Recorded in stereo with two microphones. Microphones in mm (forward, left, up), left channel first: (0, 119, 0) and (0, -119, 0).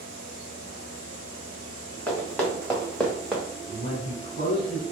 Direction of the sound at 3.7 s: 45° right (ahead or behind).